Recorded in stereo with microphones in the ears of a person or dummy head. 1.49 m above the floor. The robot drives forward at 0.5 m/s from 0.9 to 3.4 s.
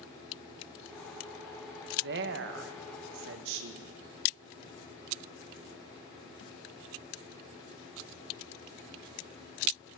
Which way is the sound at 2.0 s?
70° right (ahead or behind).